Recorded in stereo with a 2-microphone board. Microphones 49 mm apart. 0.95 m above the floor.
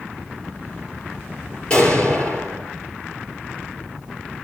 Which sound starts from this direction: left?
An explosion, at 1.7 s.